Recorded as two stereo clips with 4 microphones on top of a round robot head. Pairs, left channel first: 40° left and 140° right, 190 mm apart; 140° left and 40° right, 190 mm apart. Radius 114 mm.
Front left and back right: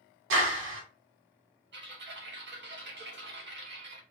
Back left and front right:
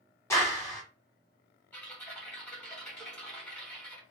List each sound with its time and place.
0.3 s a clap: 145° right, 1.8 m
1.7 s typing on a keyboard: 140° right, 2 m